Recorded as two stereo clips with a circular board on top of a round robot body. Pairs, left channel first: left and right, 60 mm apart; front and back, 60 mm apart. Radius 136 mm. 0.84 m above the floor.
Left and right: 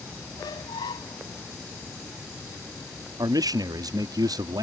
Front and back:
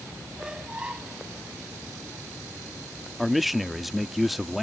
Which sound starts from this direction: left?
A squeak, at 0.4 s.